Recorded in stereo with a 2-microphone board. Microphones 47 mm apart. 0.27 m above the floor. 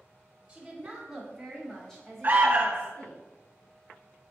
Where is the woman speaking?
20° right (ahead or behind), 1.4 m; by 3.2 s 35° left (ahead or behind), 2.0 m.